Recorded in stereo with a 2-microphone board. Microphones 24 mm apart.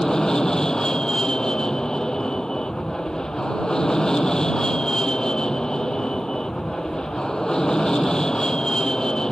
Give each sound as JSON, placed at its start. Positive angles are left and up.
{"t": 0.0, "sound": "an aircraft", "side_deg": 30}